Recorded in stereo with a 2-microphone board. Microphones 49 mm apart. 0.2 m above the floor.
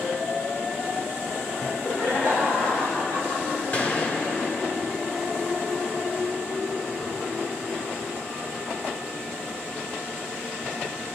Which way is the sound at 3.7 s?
45° left (ahead or behind).